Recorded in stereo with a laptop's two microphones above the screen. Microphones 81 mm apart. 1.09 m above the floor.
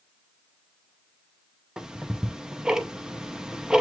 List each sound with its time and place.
1.8 s ticking: 10° right (ahead or behind), 0.5 m